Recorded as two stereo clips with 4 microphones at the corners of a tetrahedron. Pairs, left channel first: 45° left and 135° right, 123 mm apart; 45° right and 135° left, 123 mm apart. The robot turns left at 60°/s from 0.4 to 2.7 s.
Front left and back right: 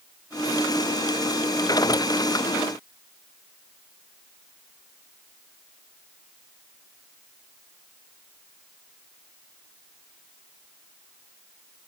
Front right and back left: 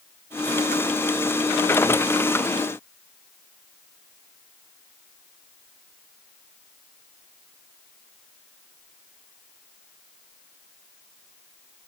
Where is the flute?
No flute in this recording.